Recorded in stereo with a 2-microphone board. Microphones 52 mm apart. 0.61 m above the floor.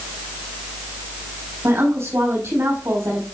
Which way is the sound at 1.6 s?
70° right (ahead or behind).